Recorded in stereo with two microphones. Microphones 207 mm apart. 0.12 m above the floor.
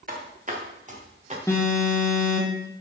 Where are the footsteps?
45° right (ahead or behind), 2.5 m; by 1.4 s 35° right (ahead or behind), 3.5 m.